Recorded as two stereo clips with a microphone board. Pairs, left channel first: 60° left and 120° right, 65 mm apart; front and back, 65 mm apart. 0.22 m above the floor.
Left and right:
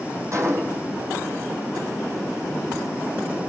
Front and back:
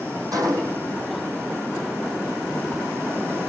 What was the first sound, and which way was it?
A gunshot, 160° right.